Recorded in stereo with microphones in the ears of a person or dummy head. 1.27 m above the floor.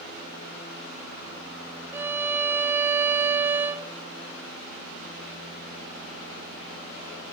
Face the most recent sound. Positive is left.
turn(degrees=-10)  # may be behind; listen again after turning